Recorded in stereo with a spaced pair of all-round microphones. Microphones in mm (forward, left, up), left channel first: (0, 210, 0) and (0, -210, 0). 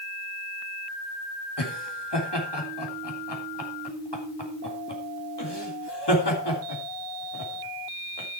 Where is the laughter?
70° left (ahead or behind), 3 m.